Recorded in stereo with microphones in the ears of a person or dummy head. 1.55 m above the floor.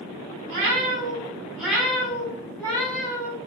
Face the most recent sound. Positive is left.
turn(degrees=20)  # may be behind; listen again after turning